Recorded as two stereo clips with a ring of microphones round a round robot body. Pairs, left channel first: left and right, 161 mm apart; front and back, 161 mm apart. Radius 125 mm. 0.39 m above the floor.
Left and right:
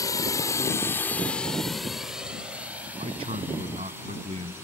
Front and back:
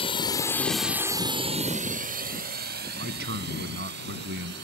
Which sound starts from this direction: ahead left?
A drone, at 0.0 s.